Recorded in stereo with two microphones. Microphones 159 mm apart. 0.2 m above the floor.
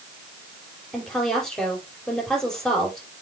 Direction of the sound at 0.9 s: 5° left (ahead or behind).